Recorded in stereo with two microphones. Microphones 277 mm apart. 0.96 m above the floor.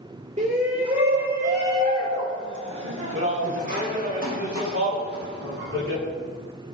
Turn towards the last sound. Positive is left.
turn(degrees=-55)  # may be behind; listen again after turning